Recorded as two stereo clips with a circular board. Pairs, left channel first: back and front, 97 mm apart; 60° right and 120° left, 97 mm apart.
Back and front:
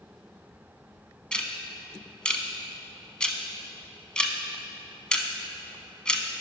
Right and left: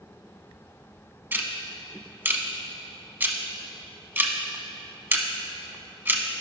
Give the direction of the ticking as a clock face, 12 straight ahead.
8 o'clock.